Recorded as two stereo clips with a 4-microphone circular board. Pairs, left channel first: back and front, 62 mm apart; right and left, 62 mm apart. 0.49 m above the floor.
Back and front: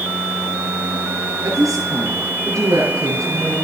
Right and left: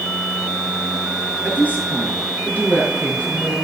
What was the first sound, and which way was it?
A woman speaking, 30° right.